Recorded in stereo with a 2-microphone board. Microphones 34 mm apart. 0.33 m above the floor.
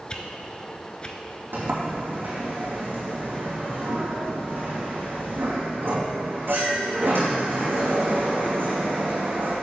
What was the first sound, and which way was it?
A whoosh, 25° left (ahead or behind).